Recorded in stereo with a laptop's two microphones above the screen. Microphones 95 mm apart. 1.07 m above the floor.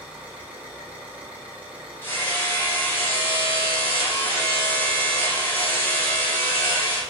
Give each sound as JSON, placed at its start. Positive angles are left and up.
{"t": 0.0, "sound": "an engine running", "side_deg": -15, "distance_m": 2.5}
{"t": 2.0, "sound": "hammering", "side_deg": 20, "distance_m": 2.0}